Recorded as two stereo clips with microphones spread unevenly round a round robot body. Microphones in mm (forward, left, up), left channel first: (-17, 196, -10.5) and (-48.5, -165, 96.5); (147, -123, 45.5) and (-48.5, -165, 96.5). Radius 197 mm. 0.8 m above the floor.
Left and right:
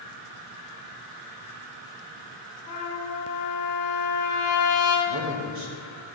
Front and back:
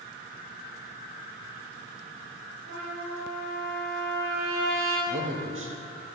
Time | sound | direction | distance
2.7 | a trumpet | 155° left | 5.5 m
5.1 | a man speaking | 145° right | 2.5 m